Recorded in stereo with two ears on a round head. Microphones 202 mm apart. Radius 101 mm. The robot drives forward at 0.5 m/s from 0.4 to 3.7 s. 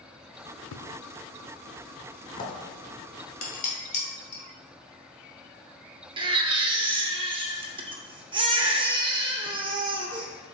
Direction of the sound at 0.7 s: 60° left (ahead or behind).